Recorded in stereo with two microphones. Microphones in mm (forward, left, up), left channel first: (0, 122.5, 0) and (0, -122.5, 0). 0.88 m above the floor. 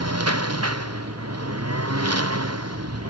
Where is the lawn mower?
85° right.